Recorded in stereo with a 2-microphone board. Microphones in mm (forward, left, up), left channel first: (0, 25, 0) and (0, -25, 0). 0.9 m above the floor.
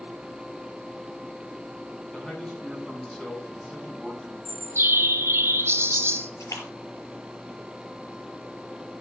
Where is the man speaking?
15° left (ahead or behind), 6 m.